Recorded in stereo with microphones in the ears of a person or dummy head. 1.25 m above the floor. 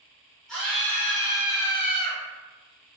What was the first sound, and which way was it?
A scream, 5° left (ahead or behind).